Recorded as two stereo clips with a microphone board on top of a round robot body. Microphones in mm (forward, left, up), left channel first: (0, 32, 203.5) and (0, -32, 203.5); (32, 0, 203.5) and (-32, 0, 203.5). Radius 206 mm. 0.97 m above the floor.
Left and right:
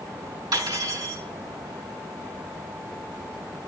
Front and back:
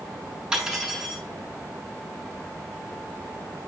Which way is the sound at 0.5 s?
100° right.